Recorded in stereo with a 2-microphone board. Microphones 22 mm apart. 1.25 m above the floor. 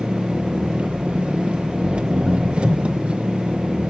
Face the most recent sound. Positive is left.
turn(degrees=-70)  # may be behind; listen again after turning